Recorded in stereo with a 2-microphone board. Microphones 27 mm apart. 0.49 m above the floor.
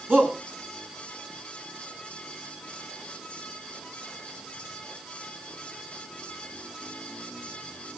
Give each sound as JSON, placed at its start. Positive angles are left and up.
{"t": 0.1, "sound": "a shout", "side_deg": -80, "distance_m": 4.5}